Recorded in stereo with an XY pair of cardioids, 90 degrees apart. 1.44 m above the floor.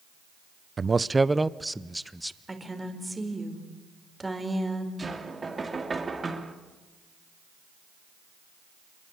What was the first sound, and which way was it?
A man speaking, 30° right.